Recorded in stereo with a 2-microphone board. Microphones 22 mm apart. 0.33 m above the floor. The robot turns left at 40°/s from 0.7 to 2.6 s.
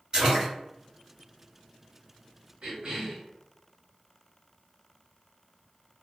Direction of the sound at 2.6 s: 45° right (ahead or behind).